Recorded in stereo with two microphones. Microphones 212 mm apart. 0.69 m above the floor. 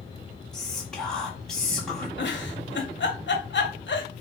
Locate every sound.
0.5 s whispering: centre (ahead or behind), 1.2 m
2.2 s a giggle: 60° left (ahead or behind), 0.6 m